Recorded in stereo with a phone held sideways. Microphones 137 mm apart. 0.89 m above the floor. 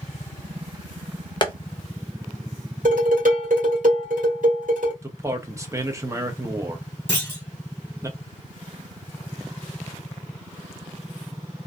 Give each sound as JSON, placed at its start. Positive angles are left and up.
{"t": 1.4, "sound": "tapping", "side_deg": 35, "distance_m": 0.7}
{"t": 2.9, "sound": "dishes clattering", "side_deg": -75, "distance_m": 1.5}
{"t": 5.0, "sound": "a man speaking", "side_deg": -20, "distance_m": 0.6}
{"t": 7.1, "sound": "a clunk", "side_deg": 15, "distance_m": 0.9}